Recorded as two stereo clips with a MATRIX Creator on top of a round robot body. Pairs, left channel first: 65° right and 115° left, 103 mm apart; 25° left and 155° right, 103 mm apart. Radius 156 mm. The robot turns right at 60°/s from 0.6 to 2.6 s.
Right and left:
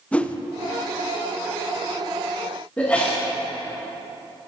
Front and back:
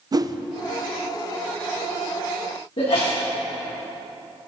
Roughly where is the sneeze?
Ahead.